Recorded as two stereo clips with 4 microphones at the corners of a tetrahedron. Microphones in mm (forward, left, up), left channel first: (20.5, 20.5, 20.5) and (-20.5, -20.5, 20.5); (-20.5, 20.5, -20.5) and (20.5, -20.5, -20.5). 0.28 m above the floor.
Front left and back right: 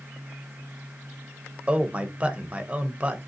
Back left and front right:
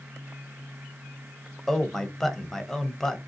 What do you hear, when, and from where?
1.7 s a man speaking: 155° right, 0.9 m